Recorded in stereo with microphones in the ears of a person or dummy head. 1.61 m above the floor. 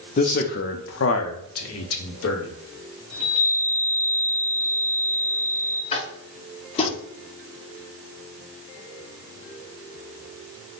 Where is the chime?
35° right (ahead or behind), 1.9 m.